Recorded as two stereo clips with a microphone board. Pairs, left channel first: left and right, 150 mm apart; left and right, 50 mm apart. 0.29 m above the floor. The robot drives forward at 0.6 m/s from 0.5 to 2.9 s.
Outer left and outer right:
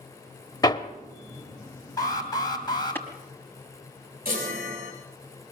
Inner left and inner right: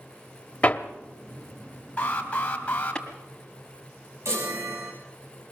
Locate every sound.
0.6 s hammering: 25° left (ahead or behind), 0.9 m; by 3.0 s 15° left (ahead or behind), 1.5 m
2.0 s an alarm: 25° left (ahead or behind), 3 m; by 3.0 s 30° left (ahead or behind), 2.5 m
4.2 s a chime: 80° right, 4.5 m